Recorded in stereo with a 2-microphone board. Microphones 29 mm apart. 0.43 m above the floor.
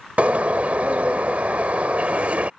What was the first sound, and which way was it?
A bird, 55° right (ahead or behind).